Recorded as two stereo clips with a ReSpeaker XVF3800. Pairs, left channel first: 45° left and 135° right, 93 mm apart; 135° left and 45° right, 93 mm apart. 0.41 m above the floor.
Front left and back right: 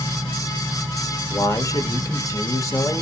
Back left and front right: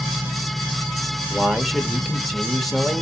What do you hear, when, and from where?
1.3 s a man speaking: 45° left, 0.9 m